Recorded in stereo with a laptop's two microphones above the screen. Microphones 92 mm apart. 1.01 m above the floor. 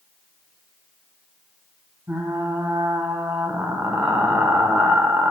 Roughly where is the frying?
Right.